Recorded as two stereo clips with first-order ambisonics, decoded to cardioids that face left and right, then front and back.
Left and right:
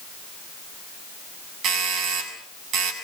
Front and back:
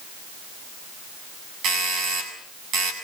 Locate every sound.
1.6 s a doorbell: 140° right, 6.5 m